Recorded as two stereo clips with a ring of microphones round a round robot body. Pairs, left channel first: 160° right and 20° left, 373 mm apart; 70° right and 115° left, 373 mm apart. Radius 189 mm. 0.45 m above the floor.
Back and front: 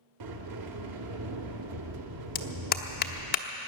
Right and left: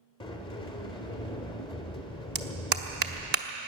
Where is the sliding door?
10° left, 1.3 m.